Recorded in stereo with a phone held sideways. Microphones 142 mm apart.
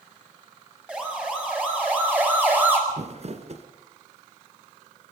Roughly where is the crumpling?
Right.